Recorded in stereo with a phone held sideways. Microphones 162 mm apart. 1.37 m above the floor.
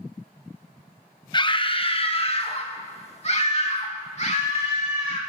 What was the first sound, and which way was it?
A scream, 30° left (ahead or behind).